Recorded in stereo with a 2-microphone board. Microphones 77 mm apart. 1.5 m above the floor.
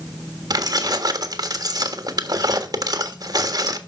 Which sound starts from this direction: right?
Keys jangling, at 0.5 s.